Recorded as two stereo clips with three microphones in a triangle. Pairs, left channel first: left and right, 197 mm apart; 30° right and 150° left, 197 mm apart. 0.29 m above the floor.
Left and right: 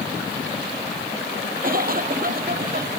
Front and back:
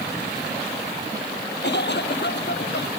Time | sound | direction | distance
1.6 | a cough | 50° right | ?